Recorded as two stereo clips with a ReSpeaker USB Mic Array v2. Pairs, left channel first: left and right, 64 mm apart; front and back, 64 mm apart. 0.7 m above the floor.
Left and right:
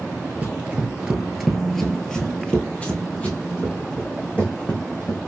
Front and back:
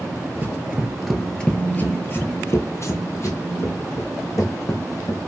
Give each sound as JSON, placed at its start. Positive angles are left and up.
{"t": 0.4, "sound": "running footsteps", "azimuth_deg": -135, "distance_m": 0.8}